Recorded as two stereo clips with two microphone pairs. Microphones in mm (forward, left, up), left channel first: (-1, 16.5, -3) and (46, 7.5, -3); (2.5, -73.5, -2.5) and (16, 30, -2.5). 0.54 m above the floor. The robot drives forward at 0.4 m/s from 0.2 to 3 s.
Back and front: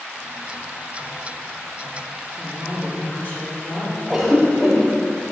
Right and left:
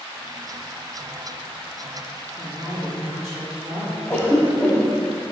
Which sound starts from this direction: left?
A woman speaking, at 2.4 s.